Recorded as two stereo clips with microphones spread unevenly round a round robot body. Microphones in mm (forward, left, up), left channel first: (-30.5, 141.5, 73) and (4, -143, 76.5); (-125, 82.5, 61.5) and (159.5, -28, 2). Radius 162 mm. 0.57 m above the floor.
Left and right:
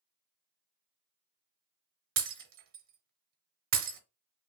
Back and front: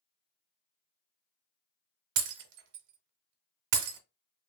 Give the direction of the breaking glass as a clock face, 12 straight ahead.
1 o'clock.